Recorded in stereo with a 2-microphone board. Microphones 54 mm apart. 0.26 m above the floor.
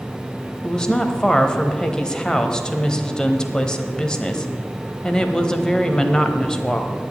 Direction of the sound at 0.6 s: 15° left (ahead or behind).